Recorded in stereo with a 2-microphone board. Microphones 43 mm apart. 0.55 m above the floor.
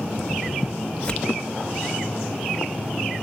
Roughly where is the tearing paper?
Left.